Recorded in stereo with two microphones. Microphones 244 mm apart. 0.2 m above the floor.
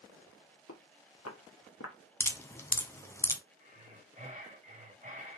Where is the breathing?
30° right (ahead or behind), 1.4 m.